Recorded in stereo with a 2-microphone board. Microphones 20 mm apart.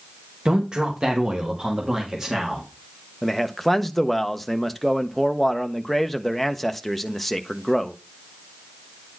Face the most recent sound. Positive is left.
turn(degrees=5)  # may be behind; listen again after turning